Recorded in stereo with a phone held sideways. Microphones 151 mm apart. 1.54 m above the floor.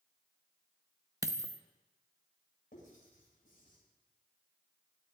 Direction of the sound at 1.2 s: 25° right (ahead or behind).